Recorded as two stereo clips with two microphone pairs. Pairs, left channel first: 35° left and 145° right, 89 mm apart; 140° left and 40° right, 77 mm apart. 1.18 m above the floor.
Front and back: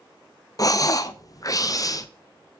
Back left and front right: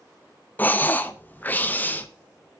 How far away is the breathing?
About 0.5 m.